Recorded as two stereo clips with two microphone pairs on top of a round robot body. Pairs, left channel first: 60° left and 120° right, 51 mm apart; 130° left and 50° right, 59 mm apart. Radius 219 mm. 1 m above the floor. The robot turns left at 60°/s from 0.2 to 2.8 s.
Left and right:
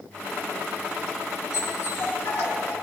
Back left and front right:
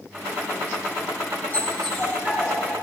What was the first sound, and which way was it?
A dog barking, 70° left.